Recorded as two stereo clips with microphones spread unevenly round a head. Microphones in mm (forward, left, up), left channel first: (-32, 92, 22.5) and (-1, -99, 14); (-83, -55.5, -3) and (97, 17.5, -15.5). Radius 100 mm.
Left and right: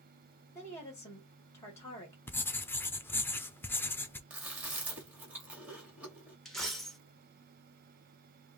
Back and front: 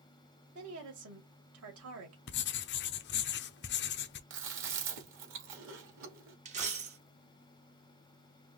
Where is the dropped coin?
15° left, 1.2 m.